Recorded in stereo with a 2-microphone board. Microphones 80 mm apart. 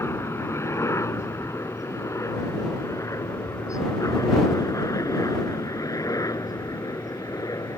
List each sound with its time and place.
0.0 s a helicopter: 35° left (ahead or behind); by 7.8 s 50° left (ahead or behind)